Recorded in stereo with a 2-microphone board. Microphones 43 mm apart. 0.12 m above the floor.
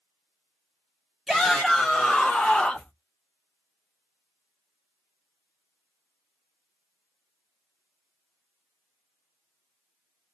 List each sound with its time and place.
1.3 s a shout: 5° right (ahead or behind), 1.8 m; by 2.9 s 30° left (ahead or behind), 1.6 m